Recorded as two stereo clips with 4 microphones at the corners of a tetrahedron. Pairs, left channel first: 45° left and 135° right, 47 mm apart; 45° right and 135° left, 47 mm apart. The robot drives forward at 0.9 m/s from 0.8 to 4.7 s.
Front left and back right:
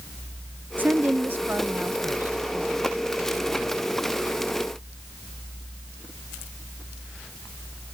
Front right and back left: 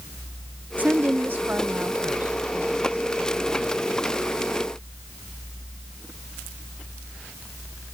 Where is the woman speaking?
Straight behind.